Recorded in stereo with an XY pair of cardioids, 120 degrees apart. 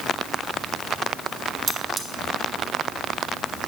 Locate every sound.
1.7 s cutlery clinking: 40° right, 1.1 m